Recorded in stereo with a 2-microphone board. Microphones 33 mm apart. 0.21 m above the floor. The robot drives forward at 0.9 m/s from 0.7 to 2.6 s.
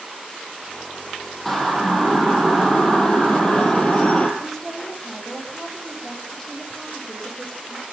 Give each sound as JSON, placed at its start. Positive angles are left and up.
{"t": 1.4, "sound": "a siren", "side_deg": 10, "distance_m": 6.0}
{"t": 4.4, "sound": "a woman speaking", "side_deg": 10, "distance_m": 9.0}